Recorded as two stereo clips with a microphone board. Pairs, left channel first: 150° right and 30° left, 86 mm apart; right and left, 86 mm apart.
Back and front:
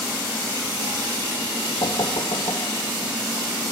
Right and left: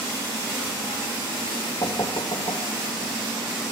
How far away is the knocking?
About 2 m.